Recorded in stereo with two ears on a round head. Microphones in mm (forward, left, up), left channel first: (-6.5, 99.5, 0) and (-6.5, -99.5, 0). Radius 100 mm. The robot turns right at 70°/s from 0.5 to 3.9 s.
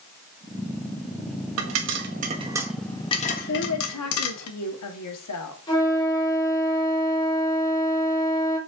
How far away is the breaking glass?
No breaking glass in this recording.